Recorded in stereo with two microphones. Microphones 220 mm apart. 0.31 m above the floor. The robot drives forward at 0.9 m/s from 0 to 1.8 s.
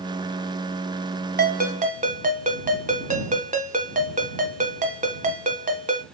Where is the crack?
No crack in this recording.